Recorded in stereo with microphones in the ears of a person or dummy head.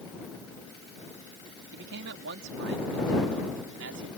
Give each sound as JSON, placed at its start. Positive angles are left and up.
{"t": 1.7, "sound": "a man speaking", "side_deg": -65}